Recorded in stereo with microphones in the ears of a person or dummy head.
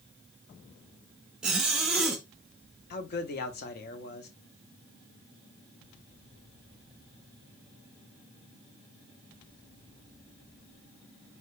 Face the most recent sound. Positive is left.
turn(degrees=55)  # may be behind; listen again after turning